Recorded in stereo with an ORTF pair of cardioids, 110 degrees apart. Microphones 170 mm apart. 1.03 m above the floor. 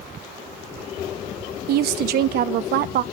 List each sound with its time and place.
1.7 s a woman speaking: 70° right, 1.0 m